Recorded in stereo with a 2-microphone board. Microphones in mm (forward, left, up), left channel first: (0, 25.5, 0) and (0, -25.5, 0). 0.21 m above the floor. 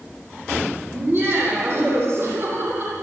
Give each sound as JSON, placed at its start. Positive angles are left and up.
{"t": 0.9, "sound": "laughter", "side_deg": -40, "distance_m": 9.0}